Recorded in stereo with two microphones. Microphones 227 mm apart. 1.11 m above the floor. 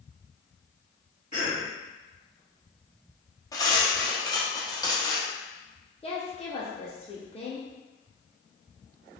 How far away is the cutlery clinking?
About 0.8 m.